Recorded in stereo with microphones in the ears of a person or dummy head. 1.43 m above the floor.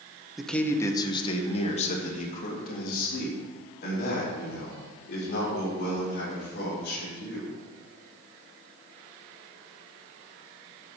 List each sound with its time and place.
0.4 s a man speaking: centre (ahead or behind), 1.3 m; by 7.5 s 70° left (ahead or behind), 7.5 m